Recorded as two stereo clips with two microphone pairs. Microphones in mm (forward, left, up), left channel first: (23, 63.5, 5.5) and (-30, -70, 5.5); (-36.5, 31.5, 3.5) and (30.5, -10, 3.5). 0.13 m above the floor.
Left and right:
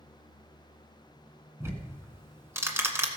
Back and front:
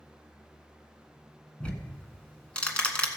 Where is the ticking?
155° right, 1.3 m.